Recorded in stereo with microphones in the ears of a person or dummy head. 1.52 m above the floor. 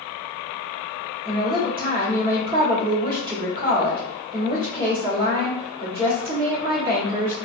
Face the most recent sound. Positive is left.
turn(degrees=-30)  # may be behind; listen again after turning